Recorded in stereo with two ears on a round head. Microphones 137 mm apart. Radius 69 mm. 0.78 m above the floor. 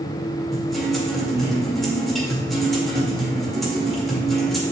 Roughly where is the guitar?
Centre.